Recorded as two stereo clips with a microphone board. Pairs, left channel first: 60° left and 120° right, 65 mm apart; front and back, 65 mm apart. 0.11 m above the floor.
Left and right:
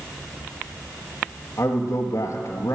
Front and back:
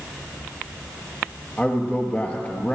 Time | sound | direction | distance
1.6 | a man speaking | 60° left | 1.9 m